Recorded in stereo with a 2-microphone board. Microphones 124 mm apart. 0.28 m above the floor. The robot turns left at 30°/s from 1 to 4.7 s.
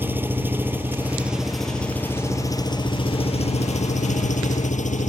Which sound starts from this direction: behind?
An engine running, at 0.0 s.